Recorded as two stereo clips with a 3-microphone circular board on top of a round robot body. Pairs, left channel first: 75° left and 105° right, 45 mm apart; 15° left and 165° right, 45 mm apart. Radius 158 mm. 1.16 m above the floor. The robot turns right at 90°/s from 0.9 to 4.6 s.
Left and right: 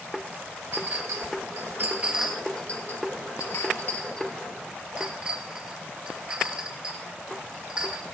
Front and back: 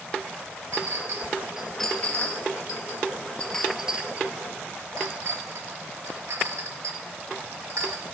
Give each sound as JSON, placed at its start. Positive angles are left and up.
{"t": 0.7, "sound": "a clink", "azimuth_deg": -150, "distance_m": 1.2}